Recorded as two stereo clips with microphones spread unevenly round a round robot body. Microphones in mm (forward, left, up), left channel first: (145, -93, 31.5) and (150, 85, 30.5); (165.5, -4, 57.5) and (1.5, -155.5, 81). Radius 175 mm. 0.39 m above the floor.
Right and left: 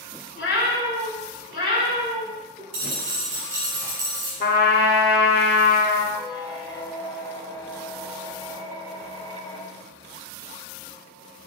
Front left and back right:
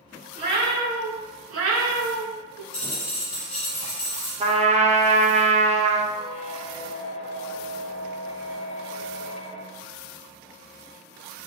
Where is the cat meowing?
90° right, 1.3 m; by 2.6 s 160° right, 0.7 m.